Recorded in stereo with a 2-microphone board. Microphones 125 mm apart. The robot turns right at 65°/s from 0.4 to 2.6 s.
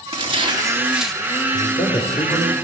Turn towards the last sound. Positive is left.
turn(degrees=160)